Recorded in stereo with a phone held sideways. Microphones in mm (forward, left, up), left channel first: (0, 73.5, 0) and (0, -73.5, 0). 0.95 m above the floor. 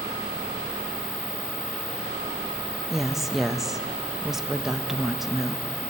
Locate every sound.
2.9 s a woman speaking: 5° right (ahead or behind), 0.6 m